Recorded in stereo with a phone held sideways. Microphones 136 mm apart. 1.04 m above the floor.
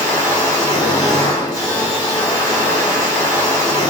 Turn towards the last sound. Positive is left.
turn(degrees=30)  # may be behind; listen again after turning